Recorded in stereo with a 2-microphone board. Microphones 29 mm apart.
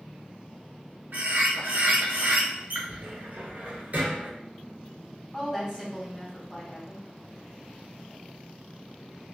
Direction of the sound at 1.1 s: 65° right (ahead or behind).